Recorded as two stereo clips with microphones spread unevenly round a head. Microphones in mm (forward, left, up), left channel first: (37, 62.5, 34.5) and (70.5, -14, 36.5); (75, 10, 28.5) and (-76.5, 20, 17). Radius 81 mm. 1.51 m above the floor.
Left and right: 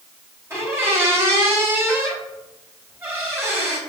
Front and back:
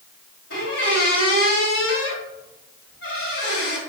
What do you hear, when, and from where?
0.5 s a squeak: 5° right, 3.5 m